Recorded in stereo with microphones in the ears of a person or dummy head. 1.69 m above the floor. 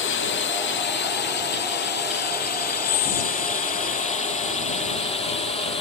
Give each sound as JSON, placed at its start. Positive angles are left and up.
{"t": 0.0, "sound": "a drone", "side_deg": 60}
{"t": 2.8, "sound": "whispering", "side_deg": 40}